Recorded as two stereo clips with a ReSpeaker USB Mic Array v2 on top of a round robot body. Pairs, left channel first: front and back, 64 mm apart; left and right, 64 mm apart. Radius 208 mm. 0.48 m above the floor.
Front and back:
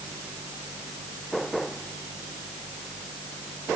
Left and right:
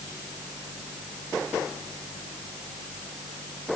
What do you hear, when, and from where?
Only background noise.